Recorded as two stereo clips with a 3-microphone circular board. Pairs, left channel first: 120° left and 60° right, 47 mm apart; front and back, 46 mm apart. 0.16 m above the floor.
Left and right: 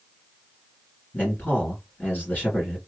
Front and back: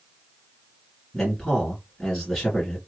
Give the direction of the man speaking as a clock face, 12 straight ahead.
9 o'clock.